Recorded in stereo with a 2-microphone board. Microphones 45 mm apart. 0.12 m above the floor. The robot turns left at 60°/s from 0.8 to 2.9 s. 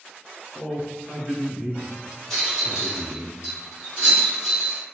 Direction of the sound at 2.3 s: 5° left (ahead or behind).